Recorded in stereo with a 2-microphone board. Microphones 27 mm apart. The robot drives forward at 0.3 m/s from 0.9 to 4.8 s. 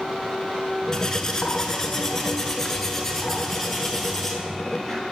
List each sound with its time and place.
0.9 s cutlery clinking: 20° left (ahead or behind), 0.7 m; by 5.0 s 10° left (ahead or behind), 1.6 m